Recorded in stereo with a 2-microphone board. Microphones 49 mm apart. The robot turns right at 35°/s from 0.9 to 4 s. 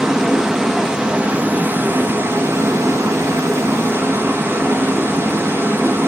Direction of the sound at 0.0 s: 170° right.